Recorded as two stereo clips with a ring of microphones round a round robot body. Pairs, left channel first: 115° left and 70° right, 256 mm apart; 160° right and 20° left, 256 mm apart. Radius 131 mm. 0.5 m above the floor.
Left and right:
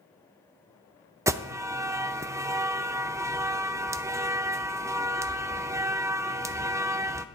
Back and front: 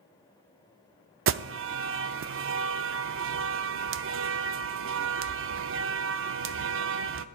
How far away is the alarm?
About 0.5 m.